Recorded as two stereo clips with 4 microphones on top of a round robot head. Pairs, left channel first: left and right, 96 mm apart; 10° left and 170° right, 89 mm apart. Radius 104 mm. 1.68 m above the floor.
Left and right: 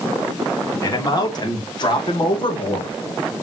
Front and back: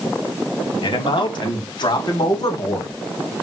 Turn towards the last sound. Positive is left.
turn(degrees=60)